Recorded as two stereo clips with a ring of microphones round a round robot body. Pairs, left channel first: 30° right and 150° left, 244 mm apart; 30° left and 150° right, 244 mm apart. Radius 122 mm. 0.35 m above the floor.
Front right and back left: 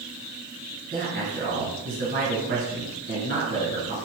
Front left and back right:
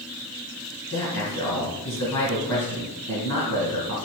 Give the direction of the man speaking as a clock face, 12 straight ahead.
9 o'clock.